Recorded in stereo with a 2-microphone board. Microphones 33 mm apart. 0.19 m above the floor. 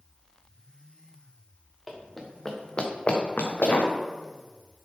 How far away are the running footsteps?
About 1.7 m.